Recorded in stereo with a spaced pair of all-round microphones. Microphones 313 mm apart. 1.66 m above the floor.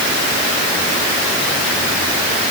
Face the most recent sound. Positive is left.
No sound to turn to.